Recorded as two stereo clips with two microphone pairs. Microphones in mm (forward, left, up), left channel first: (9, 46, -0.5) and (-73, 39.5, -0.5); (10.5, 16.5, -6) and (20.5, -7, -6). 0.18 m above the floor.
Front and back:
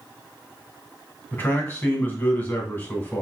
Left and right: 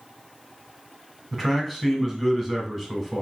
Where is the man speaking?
20° left, 1.3 m.